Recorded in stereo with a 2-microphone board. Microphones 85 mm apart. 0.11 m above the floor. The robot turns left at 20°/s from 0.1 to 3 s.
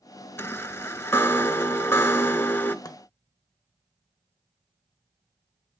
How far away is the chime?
About 0.6 m.